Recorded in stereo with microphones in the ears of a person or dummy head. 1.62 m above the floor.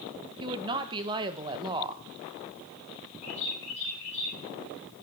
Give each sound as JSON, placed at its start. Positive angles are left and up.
{"t": 0.4, "sound": "a woman speaking", "side_deg": -25, "distance_m": 1.3}
{"t": 3.2, "sound": "a bird", "side_deg": 40, "distance_m": 5.5}